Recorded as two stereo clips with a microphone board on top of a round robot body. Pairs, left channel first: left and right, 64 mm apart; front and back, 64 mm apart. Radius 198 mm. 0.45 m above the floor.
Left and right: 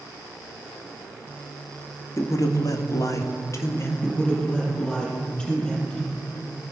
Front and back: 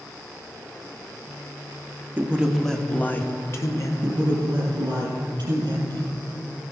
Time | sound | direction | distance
2.2 | a man speaking | 120° left | 1.5 m
4.0 | a man speaking | 165° left | 5.5 m